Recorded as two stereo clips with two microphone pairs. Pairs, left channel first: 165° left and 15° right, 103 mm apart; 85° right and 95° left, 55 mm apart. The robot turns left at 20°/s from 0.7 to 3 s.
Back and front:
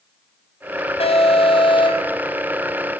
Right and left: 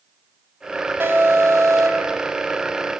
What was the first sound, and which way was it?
An alarm, 145° left.